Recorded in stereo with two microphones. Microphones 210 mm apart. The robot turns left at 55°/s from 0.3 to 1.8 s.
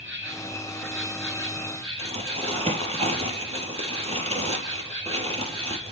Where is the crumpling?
30° right (ahead or behind), 3.5 m.